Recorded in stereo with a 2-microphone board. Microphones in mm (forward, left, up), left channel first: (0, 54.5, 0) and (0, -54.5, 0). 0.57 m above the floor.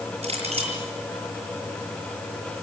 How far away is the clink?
About 8.5 m.